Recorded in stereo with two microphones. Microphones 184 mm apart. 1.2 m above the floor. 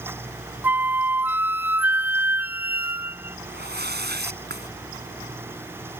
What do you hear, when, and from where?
0.6 s a flute: 10° right (ahead or behind)
3.5 s a whoosh: 60° right (ahead or behind)